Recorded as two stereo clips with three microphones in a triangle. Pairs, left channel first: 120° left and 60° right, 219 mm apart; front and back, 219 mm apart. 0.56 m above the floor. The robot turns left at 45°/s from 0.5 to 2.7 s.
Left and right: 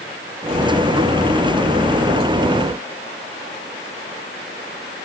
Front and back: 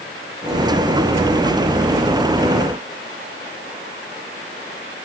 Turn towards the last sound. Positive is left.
No sound to turn to.